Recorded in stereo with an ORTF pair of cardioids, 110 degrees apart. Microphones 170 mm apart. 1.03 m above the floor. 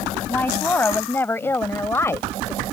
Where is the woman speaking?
10° left; by 2.6 s 15° left.